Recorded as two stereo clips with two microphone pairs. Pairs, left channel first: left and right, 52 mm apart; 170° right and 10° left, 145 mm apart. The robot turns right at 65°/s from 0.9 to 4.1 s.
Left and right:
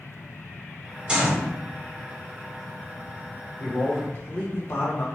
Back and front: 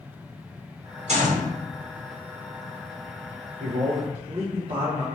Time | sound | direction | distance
1.1 | a gunshot | 15° right | 0.8 m
3.6 | a man speaking | 25° left | 0.7 m